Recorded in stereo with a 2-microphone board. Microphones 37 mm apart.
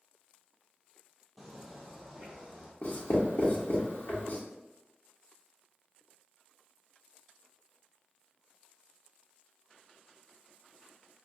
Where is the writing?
65° left (ahead or behind), 1.2 m.